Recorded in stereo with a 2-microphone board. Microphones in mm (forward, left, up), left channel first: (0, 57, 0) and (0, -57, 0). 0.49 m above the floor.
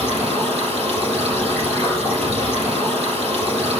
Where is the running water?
60° right (ahead or behind), 6 m.